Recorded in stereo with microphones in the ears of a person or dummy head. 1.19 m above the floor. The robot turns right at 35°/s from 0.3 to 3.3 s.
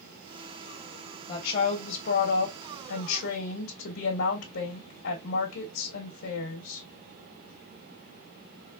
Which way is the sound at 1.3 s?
30° left.